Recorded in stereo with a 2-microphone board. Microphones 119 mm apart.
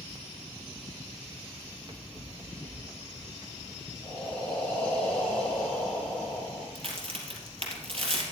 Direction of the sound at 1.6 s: 45° right (ahead or behind).